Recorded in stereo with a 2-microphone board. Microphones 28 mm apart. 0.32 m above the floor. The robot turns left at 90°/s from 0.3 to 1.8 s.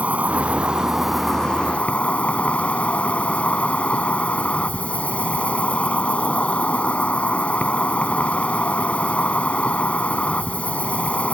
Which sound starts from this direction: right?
An insect, at 0.0 s.